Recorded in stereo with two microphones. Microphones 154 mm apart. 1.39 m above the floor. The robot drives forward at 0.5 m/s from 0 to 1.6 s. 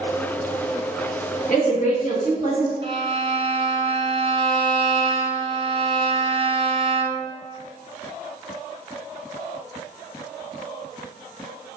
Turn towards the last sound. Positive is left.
turn(degrees=-35)  # may be behind; listen again after turning